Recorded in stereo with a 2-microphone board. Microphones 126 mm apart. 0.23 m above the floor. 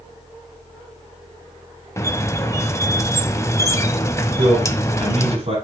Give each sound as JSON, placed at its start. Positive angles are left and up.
{"t": 2.0, "sound": "a squeak", "side_deg": 20, "distance_m": 0.6}
{"t": 4.4, "sound": "a man speaking", "side_deg": -50, "distance_m": 6.5}